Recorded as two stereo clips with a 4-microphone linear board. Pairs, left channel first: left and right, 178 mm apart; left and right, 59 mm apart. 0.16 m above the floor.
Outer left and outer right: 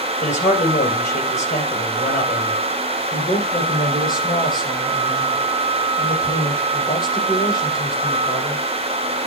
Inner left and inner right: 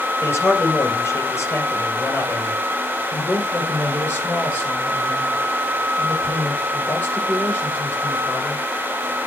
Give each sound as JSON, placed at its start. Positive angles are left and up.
{"t": 0.2, "sound": "a man speaking", "side_deg": 45, "distance_m": 2.5}
{"t": 3.1, "sound": "a man speaking", "side_deg": 25, "distance_m": 5.5}